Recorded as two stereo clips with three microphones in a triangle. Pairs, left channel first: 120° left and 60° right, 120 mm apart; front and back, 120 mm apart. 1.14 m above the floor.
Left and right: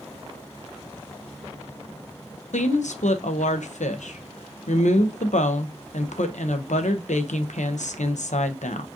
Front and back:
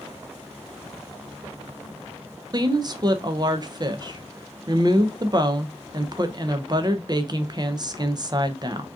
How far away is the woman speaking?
About 0.6 m.